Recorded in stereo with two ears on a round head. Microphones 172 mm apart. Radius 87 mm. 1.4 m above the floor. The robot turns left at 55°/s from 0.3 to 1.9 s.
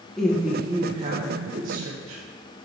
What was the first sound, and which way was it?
A woman speaking, 5° left.